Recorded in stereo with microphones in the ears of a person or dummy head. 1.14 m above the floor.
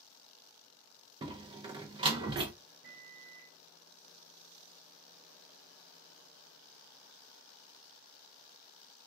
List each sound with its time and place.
1.2 s a door slam: 25° right (ahead or behind), 0.5 m
2.8 s a microwave: 70° right (ahead or behind), 1.0 m